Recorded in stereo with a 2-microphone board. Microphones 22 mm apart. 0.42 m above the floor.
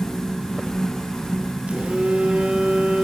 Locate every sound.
1.7 s a phone buzzing: 70° right (ahead or behind), 4 m